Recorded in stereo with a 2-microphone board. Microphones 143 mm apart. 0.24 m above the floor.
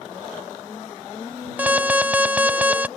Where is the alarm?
10° right (ahead or behind).